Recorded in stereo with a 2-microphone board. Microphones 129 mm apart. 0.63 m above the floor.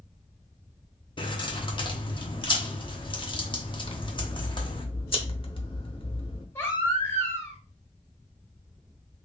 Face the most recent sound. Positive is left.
turn(degrees=20)  # may be behind; listen again after turning